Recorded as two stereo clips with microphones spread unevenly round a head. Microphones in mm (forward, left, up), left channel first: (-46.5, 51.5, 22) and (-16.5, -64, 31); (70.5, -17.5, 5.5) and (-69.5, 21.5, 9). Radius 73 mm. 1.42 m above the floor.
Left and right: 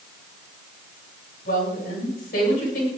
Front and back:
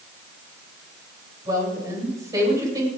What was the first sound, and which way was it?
A woman speaking, 95° left.